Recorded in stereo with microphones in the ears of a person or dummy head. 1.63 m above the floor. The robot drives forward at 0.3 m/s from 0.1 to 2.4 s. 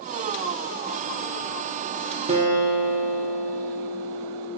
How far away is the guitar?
About 0.5 m.